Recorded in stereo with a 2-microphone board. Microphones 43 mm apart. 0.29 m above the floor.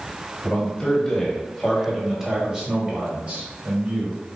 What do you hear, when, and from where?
0.4 s a man speaking: 25° left (ahead or behind), 1.6 m; by 4.2 s 45° right (ahead or behind), 1.6 m